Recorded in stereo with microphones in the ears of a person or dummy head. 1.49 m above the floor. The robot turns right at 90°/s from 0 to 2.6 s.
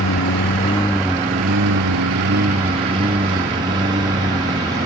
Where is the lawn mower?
80° left; by 4.9 s 25° right (ahead or behind).